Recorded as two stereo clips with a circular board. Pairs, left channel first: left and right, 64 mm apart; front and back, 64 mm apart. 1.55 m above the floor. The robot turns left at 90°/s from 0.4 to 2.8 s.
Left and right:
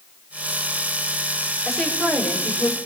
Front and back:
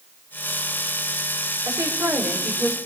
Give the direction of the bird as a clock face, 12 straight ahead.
No bird in this recording.